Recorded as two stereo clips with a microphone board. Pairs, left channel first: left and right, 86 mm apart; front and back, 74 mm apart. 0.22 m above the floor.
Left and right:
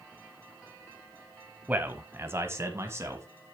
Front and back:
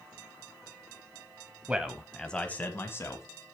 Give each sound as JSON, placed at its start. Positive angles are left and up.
{"t": 1.7, "sound": "a man speaking", "azimuth_deg": -130, "distance_m": 1.2}